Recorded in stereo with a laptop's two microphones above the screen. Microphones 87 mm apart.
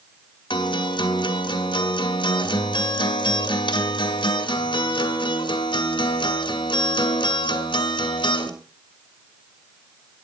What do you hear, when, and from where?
0.5 s a guitar: 70° left (ahead or behind), 2 m